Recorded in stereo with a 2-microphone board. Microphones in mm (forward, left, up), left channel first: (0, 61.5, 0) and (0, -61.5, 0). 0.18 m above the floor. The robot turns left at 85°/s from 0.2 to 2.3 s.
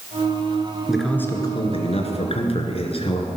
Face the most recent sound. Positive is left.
turn(degrees=70)